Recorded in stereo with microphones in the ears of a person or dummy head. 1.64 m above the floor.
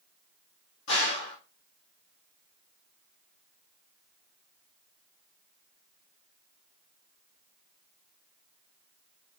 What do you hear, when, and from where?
0.9 s a gunshot: 60° left (ahead or behind), 1.5 m